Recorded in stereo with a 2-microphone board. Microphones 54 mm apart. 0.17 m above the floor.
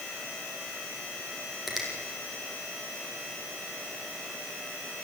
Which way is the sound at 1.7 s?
5° right (ahead or behind).